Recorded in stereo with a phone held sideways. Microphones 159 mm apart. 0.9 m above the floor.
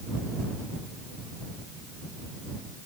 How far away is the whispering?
No whispering in this recording.